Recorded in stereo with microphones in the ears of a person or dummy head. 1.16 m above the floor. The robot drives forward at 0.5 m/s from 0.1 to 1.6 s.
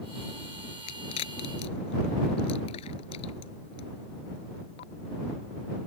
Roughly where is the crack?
Left.